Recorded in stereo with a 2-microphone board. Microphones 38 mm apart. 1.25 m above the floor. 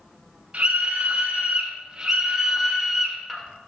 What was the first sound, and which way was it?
A scream, 35° right (ahead or behind).